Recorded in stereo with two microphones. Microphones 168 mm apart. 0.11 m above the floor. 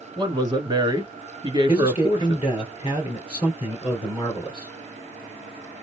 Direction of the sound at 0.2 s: 25° right (ahead or behind).